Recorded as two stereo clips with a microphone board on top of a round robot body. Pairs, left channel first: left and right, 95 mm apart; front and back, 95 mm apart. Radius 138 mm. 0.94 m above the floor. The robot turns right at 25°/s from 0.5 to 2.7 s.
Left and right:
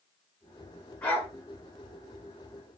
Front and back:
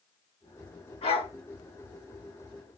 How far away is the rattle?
I don't hear a rattle.